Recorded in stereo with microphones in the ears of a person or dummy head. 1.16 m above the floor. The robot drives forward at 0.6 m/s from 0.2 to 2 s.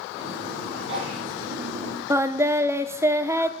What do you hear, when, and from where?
0.7 s a sneeze: 75° right (ahead or behind), 8.5 m; by 1.2 s 80° right, 8.5 m
2.1 s singing: 10° right (ahead or behind), 0.6 m